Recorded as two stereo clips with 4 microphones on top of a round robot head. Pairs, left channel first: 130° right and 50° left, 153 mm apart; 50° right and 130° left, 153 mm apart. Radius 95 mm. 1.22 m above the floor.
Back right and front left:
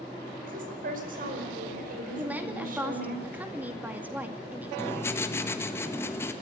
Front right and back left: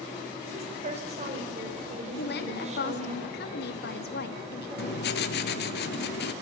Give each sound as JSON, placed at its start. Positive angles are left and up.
{"t": 0.4, "sound": "a woman speaking", "azimuth_deg": 85, "distance_m": 5.0}
{"t": 2.2, "sound": "a woman speaking", "azimuth_deg": -30, "distance_m": 2.0}
{"t": 4.8, "sound": "writing", "azimuth_deg": -55, "distance_m": 1.5}